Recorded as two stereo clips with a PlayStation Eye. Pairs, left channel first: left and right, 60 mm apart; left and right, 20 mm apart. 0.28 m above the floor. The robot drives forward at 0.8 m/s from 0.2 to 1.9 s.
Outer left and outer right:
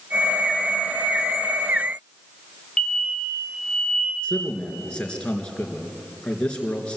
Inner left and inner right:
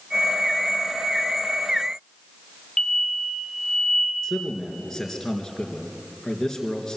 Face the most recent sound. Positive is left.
turn(degrees=20)  # may be behind; listen again after turning